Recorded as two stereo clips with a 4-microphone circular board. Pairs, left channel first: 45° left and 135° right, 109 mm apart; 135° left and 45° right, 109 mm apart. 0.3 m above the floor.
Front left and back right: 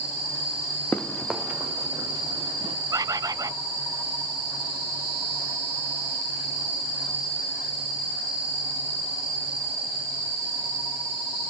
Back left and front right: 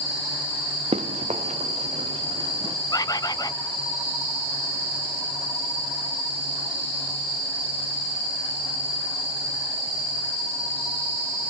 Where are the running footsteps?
30° right, 1.3 m; by 2.8 s 90° right, 2 m.